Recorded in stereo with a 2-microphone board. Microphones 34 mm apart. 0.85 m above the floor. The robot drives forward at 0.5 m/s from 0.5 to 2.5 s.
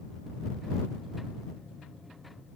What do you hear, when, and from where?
Only background noise.